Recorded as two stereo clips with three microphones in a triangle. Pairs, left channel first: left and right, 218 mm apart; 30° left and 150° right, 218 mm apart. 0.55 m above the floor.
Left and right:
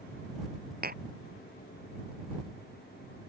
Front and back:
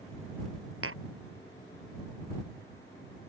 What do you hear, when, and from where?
0.8 s tapping: 135° right